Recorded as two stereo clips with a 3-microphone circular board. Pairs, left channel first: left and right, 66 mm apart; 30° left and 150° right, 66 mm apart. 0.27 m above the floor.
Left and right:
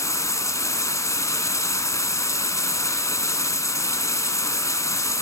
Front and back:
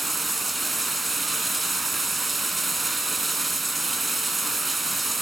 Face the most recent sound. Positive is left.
turn(degrees=120)